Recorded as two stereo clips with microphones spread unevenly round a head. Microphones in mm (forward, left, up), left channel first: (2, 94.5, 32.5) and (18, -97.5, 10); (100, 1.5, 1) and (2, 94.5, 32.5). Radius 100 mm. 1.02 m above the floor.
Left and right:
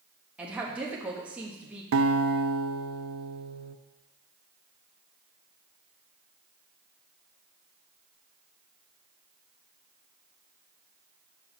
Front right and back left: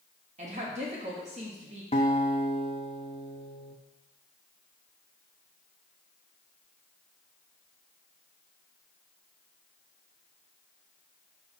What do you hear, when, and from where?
0.4 s a woman speaking: 165° right, 1.7 m
1.9 s a guitar: 110° right, 0.6 m